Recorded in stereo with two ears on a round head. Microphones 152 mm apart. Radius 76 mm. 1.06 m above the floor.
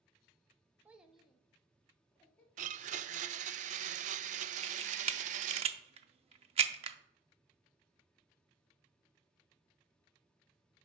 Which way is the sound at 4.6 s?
35° right (ahead or behind).